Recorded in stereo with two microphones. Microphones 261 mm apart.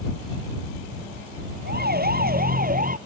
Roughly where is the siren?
Right.